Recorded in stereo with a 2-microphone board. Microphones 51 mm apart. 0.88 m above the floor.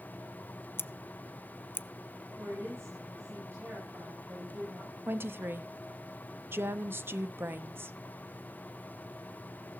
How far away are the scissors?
About 0.5 m.